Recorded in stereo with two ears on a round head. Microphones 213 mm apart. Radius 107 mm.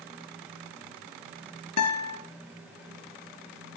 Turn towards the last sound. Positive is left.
turn(degrees=75)  # may be behind; listen again after turning